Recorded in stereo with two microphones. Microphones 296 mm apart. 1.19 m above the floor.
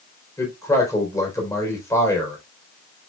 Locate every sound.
0.4 s a man speaking: 10° left (ahead or behind), 4 m